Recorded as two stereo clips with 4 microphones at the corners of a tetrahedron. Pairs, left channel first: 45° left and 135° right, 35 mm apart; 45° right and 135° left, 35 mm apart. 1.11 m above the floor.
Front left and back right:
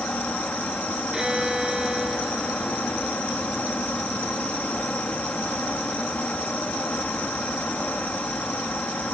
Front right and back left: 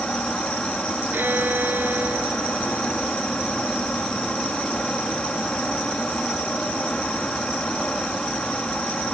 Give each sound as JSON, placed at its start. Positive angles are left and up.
{"t": 0.0, "sound": "an insect", "azimuth_deg": 10}
{"t": 1.1, "sound": "a violin", "azimuth_deg": 150}